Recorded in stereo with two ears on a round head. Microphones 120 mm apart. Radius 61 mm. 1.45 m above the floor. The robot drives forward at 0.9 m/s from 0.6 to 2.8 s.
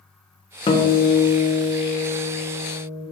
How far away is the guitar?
About 0.8 m.